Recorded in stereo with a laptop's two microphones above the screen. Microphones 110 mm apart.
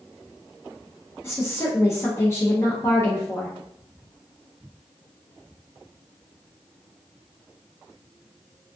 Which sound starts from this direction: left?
A woman speaking, at 1.2 s.